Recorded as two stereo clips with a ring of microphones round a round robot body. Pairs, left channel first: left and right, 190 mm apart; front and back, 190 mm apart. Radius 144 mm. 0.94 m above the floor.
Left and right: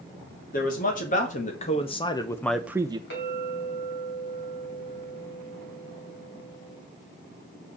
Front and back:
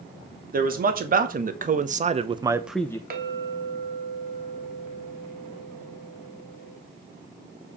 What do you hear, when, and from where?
0.5 s a man speaking: 140° left, 2.5 m; by 3.0 s 55° right, 0.8 m
3.1 s a clink: 140° left, 3 m